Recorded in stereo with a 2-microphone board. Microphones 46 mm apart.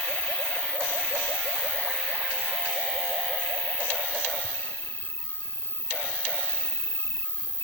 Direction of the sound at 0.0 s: 80° left.